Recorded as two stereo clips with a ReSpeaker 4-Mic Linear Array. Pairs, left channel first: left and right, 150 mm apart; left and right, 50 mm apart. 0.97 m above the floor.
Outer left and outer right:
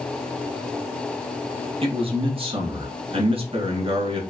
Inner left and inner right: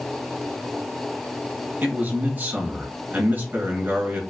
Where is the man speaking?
35° right (ahead or behind), 1.6 m.